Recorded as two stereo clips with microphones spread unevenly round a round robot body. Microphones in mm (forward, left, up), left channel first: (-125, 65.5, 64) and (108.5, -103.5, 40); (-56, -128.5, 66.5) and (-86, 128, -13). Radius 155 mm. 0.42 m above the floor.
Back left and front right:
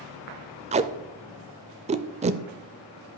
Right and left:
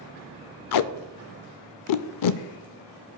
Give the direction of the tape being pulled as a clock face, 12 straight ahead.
3 o'clock.